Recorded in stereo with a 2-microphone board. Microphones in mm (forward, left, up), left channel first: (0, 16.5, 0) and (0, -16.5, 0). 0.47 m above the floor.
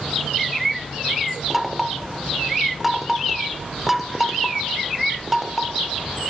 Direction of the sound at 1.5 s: 5° right (ahead or behind).